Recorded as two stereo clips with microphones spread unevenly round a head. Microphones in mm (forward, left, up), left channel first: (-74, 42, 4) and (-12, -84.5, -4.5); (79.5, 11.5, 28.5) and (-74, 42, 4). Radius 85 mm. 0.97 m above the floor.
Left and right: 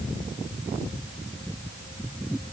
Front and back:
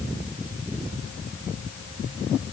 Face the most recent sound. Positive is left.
No sound to turn to.